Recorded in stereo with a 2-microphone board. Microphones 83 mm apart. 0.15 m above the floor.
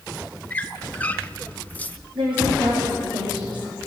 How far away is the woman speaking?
About 6.5 m.